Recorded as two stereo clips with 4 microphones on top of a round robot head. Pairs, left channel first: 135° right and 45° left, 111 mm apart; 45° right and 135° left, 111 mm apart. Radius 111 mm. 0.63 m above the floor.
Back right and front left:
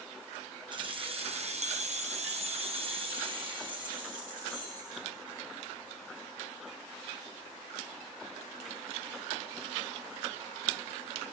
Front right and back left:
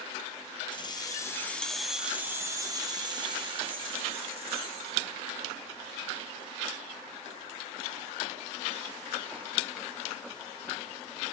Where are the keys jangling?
Straight ahead, 1.0 m; by 5.0 s 100° left, 2.5 m.